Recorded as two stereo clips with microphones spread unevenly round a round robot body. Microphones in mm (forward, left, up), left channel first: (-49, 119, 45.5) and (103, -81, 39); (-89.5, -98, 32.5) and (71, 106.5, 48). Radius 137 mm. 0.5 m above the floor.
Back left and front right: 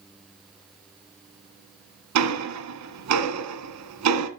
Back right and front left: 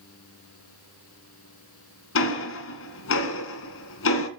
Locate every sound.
2.1 s ticking: 85° right, 1.7 m